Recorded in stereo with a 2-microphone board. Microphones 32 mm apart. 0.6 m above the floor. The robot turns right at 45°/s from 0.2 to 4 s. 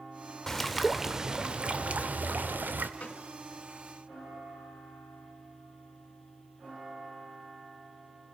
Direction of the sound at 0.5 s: 165° left.